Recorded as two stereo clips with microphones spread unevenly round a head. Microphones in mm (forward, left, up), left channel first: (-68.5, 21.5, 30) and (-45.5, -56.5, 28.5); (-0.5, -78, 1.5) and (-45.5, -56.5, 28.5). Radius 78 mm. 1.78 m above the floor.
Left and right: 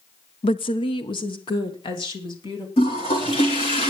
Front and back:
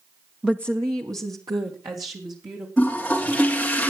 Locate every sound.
0.4 s a woman speaking: 85° left, 0.5 m; by 2.7 s 125° left, 3.5 m
2.8 s a toilet flushing: 70° left, 3 m